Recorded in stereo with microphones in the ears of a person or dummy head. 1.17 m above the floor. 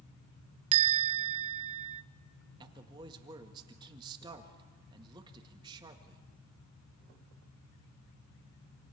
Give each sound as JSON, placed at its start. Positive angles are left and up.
{"t": 0.7, "sound": "a bell", "side_deg": -30, "distance_m": 0.7}
{"t": 2.6, "sound": "a man speaking", "side_deg": -20, "distance_m": 1.7}